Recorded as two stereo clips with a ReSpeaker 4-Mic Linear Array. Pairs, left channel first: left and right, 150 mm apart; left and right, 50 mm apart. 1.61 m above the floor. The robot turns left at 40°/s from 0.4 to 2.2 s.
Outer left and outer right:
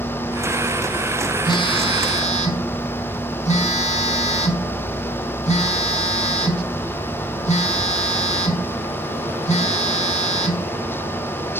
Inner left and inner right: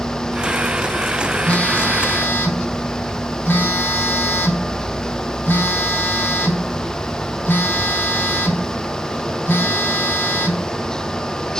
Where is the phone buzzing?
140° left, 1.8 m; by 10.7 s 110° left, 1.8 m.